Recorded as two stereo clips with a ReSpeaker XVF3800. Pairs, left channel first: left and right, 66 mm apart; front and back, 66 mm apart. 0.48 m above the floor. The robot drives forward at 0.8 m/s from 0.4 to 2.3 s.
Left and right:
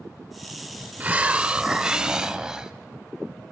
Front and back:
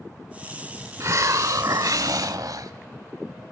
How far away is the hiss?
About 0.8 m.